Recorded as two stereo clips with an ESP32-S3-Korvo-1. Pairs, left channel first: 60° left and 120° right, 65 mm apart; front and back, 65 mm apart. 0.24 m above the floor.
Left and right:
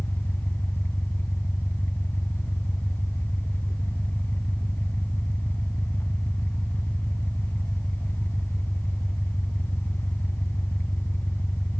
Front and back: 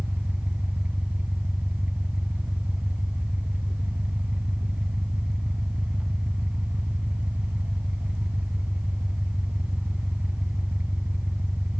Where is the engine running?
115° left, 1.1 m.